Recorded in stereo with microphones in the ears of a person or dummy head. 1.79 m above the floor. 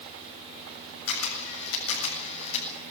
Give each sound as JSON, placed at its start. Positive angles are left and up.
{"t": 1.1, "sound": "a camera shutter", "side_deg": 70, "distance_m": 7.5}